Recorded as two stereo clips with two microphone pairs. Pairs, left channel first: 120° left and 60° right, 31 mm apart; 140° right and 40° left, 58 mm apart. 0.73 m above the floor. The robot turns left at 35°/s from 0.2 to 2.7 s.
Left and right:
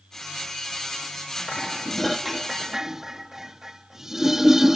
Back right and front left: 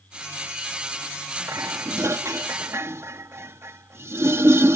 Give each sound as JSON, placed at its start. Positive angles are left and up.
{"t": 1.5, "sound": "dishes clattering", "azimuth_deg": 55}